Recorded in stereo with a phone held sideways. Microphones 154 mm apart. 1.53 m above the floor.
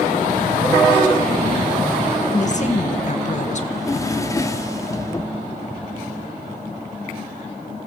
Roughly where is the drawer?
Left.